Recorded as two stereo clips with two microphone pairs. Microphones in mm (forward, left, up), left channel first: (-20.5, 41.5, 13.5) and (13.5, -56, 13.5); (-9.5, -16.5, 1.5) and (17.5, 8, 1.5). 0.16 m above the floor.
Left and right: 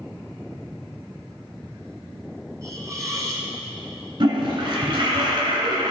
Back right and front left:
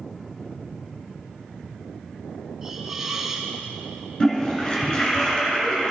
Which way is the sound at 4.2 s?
85° right.